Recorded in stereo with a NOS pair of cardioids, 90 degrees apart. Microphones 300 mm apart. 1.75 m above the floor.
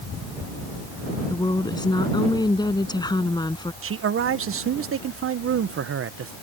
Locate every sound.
1.3 s a woman speaking: 15° left
3.8 s a man speaking: 45° right